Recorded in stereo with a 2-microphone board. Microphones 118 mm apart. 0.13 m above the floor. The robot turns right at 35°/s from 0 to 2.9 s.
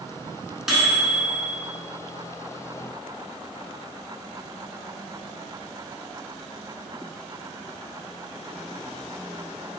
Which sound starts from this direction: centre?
A microwave, at 0.7 s.